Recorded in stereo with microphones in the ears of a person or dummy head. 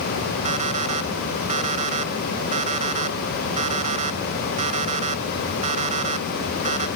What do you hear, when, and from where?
0.5 s an alarm clock: 40° right (ahead or behind)